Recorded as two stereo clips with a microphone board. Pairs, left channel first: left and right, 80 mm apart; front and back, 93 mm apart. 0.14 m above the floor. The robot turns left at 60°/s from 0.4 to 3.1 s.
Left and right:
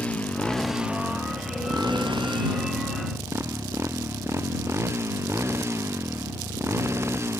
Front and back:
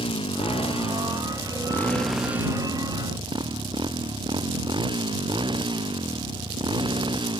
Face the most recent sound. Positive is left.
turn(degrees=-150)